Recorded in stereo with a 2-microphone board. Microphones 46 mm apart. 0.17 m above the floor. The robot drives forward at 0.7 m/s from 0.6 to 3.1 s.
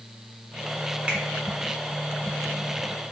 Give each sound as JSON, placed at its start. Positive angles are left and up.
{"t": 1.1, "sound": "a finger snap", "side_deg": -25, "distance_m": 1.5}